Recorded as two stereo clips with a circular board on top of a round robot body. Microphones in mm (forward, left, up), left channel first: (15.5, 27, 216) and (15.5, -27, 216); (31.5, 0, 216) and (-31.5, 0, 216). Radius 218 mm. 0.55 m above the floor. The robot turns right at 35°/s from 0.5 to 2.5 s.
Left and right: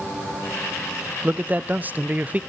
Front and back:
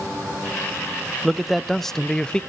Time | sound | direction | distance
1.2 | a man speaking | 100° right | 0.6 m